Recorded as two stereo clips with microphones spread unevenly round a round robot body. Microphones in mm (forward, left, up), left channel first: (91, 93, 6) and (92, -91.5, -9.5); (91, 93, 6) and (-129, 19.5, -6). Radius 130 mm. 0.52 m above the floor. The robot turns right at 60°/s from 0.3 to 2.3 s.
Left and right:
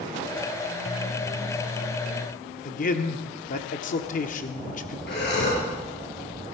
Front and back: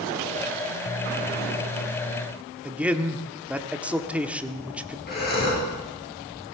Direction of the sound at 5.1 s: 65° left.